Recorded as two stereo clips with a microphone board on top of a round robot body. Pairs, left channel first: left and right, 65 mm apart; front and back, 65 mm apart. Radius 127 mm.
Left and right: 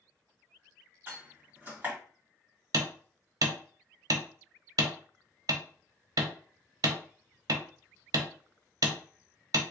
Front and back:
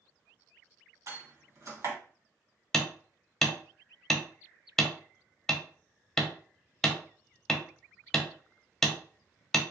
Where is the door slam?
150° right, 2 m.